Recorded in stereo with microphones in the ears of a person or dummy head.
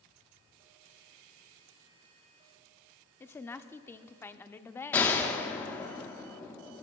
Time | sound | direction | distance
3.2 | a woman speaking | 15° left (ahead or behind) | 0.6 m
4.9 | a gunshot | 15° left (ahead or behind) | 1.0 m